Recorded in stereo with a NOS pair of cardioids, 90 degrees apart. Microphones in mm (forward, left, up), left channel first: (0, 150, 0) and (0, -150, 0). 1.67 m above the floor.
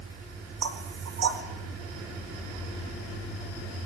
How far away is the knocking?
About 4.5 m.